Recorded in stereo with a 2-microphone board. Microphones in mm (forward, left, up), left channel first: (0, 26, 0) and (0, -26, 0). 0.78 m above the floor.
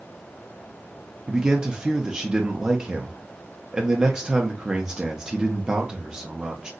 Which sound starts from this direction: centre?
A man speaking, at 1.3 s.